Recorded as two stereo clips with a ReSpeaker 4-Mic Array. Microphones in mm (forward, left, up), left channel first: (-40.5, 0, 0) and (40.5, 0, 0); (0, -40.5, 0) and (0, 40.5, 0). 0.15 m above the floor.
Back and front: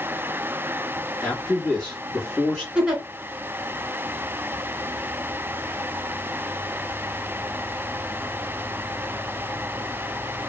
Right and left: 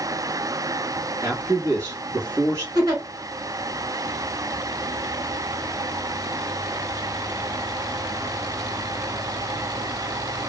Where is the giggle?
80° left, 1.5 m.